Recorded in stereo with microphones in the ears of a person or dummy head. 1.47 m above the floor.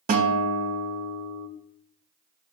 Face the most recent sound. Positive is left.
turn(degrees=-40)  # may be behind; listen again after turning